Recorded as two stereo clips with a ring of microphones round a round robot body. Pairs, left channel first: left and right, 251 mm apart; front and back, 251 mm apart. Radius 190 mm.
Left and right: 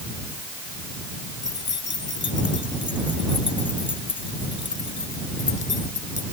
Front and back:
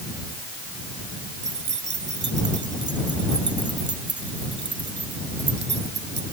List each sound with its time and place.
1.4 s keys jangling: 135° left